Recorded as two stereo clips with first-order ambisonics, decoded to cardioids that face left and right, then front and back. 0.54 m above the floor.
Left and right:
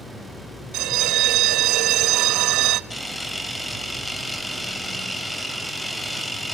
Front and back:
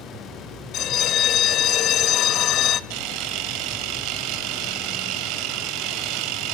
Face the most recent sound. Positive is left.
turn(degrees=175)